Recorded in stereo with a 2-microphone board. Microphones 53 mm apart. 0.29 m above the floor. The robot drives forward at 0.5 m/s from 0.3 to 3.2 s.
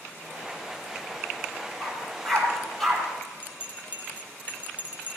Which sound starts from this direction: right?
A bell, at 3.4 s.